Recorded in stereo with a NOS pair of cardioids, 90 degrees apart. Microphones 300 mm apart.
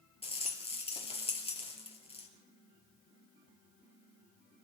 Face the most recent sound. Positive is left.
turn(degrees=20)